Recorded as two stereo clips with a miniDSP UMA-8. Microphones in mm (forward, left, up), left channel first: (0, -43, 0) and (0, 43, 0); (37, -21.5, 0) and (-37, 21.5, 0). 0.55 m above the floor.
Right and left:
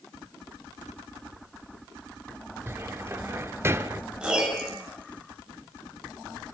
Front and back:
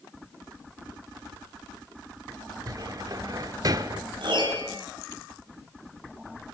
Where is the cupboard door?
140° left, 1.5 m.